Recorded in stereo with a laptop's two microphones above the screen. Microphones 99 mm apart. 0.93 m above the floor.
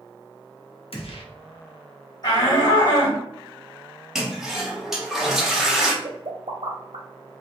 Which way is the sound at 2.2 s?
45° left (ahead or behind).